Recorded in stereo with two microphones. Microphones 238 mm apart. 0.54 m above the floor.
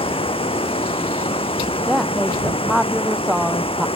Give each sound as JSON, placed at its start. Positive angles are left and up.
{"t": 0.0, "sound": "running water", "side_deg": 20}
{"t": 1.9, "sound": "a woman speaking", "side_deg": 0}